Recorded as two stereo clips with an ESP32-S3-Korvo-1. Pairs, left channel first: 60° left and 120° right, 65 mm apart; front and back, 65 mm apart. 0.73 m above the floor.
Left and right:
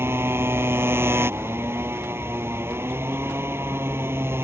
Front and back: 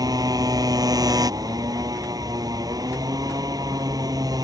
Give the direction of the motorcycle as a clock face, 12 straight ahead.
6 o'clock.